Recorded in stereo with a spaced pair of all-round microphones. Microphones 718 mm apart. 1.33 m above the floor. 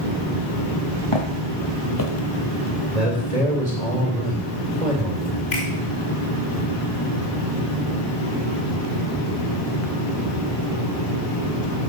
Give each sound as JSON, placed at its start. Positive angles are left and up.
{"t": 1.1, "sound": "footsteps", "side_deg": 45, "distance_m": 2.0}
{"t": 2.9, "sound": "a man speaking", "side_deg": -65, "distance_m": 3.0}
{"t": 5.5, "sound": "a finger snap", "side_deg": 85, "distance_m": 5.5}